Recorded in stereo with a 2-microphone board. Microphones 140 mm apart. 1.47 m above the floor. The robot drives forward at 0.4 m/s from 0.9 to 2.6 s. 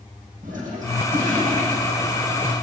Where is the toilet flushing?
70° right (ahead or behind), 7.5 m; by 2.5 s 75° right (ahead or behind), 7.5 m.